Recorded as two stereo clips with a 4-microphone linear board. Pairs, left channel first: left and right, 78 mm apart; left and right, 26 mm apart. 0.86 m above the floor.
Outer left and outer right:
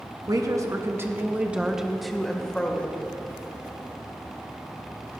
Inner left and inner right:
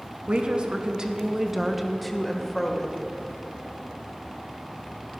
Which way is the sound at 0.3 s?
50° right (ahead or behind).